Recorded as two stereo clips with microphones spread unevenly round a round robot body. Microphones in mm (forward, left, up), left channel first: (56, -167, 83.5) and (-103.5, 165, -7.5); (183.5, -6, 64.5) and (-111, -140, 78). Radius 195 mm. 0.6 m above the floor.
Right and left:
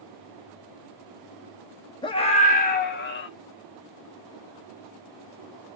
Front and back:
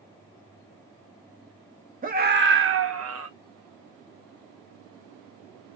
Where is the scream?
160° right, 0.9 m; by 3.3 s 130° right, 1.2 m.